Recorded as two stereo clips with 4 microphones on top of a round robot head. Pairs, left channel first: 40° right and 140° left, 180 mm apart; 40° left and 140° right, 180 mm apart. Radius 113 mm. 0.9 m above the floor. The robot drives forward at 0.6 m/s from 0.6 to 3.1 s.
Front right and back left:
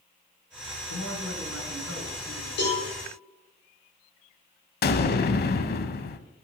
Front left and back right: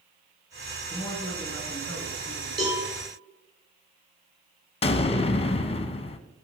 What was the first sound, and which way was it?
A man speaking, 35° right.